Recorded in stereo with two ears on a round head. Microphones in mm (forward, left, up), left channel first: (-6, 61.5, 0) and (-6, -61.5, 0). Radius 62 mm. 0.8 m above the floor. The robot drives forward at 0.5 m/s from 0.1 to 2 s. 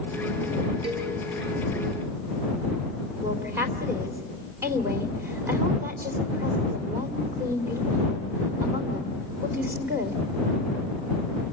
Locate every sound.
0.8 s a cowbell: 40° right (ahead or behind), 9.5 m
3.2 s a woman speaking: 20° right (ahead or behind), 3.5 m